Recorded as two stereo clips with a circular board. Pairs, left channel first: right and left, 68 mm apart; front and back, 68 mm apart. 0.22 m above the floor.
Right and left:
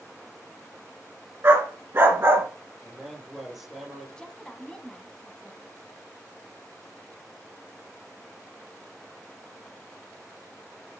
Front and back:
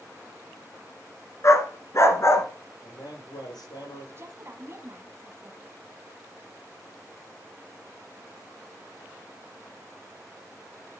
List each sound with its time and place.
1.4 s a dog barking: 40° left, 1.3 m
2.8 s a man speaking: 5° left, 5 m
4.2 s a woman speaking: 160° right, 1.4 m